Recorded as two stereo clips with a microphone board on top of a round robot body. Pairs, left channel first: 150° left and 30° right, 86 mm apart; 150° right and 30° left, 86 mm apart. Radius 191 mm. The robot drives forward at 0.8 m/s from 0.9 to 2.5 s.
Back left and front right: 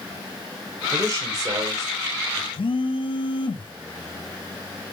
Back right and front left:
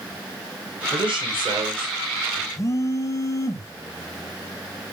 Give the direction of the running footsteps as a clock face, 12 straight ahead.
No running footsteps in this recording.